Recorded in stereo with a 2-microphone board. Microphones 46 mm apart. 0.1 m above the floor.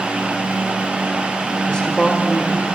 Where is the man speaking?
20° left (ahead or behind), 5.5 m.